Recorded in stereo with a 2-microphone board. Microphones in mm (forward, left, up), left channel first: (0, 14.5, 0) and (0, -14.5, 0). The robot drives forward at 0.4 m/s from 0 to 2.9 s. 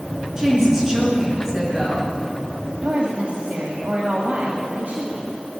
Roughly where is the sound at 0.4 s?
Centre.